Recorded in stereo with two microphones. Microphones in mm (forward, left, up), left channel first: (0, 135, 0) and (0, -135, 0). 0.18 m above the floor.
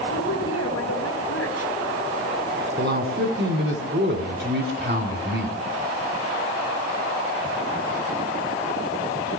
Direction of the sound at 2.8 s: 40° right (ahead or behind).